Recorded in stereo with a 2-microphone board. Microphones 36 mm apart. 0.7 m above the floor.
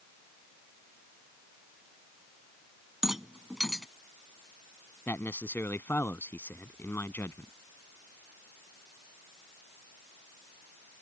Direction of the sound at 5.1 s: 75° left (ahead or behind).